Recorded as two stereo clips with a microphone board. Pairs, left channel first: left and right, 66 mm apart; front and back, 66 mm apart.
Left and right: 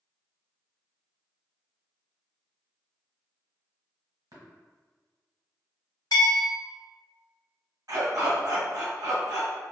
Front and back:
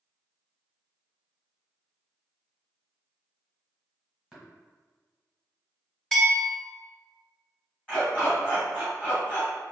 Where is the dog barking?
75° right, 1.9 m.